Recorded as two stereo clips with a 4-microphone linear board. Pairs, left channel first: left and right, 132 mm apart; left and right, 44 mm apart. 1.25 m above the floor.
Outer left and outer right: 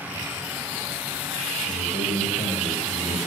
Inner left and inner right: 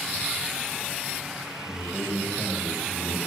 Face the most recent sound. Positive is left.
turn(degrees=80)